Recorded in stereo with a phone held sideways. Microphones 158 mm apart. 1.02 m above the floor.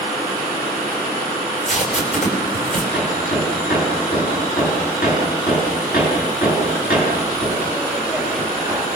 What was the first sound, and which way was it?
Tape being pulled, 50° left (ahead or behind).